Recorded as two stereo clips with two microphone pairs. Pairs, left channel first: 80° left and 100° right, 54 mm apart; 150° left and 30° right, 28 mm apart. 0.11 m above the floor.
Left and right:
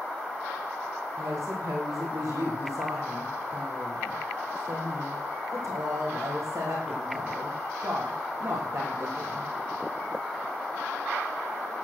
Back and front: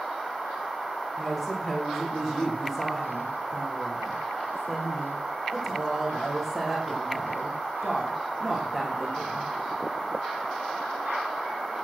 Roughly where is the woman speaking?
Behind right.